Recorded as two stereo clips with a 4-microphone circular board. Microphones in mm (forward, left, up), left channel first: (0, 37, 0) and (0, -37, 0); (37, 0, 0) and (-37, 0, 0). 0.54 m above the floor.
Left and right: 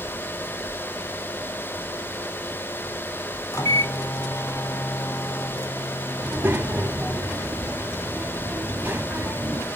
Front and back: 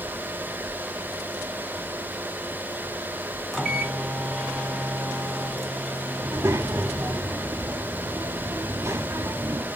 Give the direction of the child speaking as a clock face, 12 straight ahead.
5 o'clock.